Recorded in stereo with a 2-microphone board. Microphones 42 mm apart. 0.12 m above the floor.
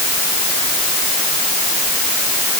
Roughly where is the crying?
I don't hear crying.